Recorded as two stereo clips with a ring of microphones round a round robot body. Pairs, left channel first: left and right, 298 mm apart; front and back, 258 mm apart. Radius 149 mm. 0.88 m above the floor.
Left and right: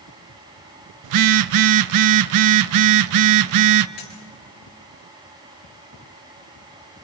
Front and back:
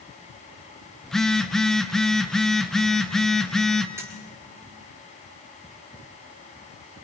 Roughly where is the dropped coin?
Left.